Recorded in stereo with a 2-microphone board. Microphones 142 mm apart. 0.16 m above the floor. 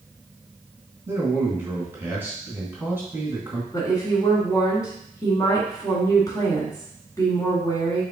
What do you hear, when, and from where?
1.1 s a man speaking: 15° right (ahead or behind), 1.6 m
3.7 s a woman speaking: 25° left (ahead or behind), 1.6 m